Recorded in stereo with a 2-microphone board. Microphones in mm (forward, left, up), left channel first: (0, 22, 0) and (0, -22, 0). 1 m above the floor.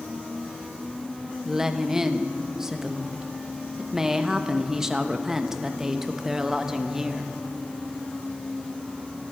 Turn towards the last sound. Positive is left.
turn(degrees=-10)  # may be behind; listen again after turning